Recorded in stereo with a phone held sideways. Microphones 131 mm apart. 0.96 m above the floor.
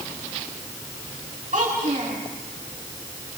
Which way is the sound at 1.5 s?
70° right (ahead or behind).